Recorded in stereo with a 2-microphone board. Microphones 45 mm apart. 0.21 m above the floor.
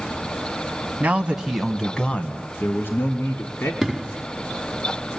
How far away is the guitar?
No guitar in this recording.